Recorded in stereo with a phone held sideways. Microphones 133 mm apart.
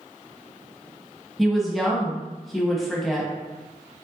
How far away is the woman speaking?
About 1.1 m.